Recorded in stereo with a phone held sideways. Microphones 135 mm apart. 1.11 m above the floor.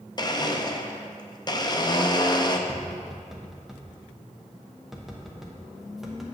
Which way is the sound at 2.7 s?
5° right (ahead or behind).